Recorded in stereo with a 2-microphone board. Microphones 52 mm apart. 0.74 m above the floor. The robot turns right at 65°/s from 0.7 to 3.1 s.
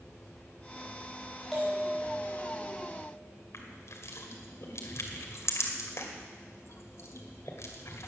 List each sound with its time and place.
1.5 s a bell: straight behind, 5 m; by 3.1 s 75° right, 5 m
3.5 s crushing: 70° left (ahead or behind), 2 m